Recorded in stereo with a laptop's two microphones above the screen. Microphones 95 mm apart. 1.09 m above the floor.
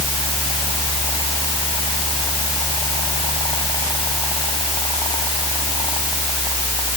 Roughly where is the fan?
Left.